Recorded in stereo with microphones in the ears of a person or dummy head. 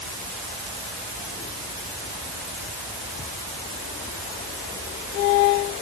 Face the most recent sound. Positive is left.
No sound to turn to.